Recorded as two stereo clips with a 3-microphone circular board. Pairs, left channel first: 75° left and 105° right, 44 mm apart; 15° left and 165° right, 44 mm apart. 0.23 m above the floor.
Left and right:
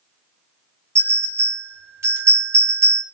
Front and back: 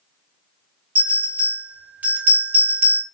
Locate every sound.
0.9 s a bell: 110° right, 1.6 m